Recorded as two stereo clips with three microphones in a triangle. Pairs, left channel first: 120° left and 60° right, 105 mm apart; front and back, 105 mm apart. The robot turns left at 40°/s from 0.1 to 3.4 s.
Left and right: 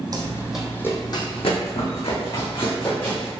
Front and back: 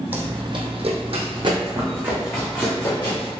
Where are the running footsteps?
105° right, 0.8 m; by 3.3 s 40° left, 1.9 m.